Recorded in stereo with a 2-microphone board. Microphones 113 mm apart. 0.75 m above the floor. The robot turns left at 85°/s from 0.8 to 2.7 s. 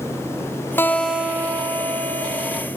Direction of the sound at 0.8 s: 25° left.